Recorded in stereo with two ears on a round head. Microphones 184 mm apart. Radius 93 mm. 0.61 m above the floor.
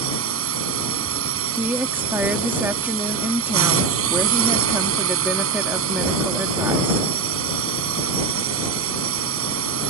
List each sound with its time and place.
0.0 s a drone: 75° right (ahead or behind)
1.6 s a woman speaking: 10° right (ahead or behind)